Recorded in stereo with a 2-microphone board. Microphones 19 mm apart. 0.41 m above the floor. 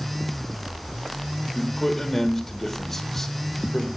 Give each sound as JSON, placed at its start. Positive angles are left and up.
{"t": 1.6, "sound": "a man speaking", "side_deg": 10, "distance_m": 1.6}